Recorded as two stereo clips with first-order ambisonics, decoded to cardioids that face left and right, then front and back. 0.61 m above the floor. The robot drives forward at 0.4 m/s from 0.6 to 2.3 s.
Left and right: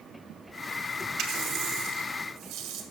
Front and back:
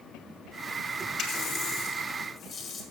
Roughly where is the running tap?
Ahead right.